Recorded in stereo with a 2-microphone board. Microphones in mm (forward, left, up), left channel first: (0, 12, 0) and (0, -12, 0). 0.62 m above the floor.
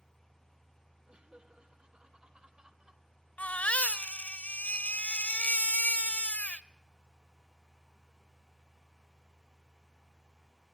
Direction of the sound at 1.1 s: 50° right (ahead or behind).